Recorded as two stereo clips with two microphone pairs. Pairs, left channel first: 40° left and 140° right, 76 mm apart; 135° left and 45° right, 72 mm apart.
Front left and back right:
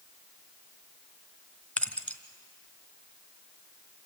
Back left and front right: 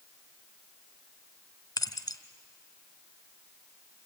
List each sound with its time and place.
1.8 s keys jangling: 110° left, 1.3 m